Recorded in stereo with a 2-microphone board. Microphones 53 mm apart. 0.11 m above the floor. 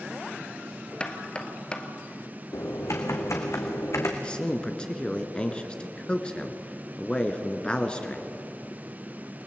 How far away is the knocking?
About 1.7 m.